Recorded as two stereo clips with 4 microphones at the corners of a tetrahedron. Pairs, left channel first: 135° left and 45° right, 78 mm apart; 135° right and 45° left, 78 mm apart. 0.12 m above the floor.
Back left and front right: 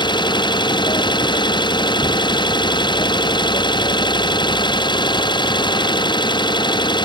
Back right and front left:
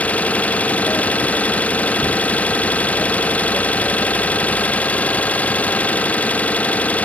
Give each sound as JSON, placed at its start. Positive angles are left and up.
{"t": 0.0, "sound": "an engine running", "azimuth_deg": 155}